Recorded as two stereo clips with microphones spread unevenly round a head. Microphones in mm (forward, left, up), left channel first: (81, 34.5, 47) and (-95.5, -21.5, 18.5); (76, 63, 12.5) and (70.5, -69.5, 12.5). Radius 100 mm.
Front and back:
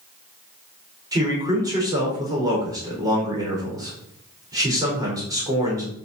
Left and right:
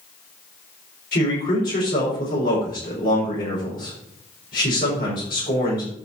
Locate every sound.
1.1 s a man speaking: 125° left, 4.5 m